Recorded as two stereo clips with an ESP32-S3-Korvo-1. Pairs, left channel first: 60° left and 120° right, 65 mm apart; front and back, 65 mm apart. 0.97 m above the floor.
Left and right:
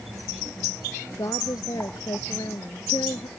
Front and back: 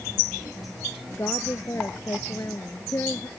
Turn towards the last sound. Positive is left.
turn(degrees=45)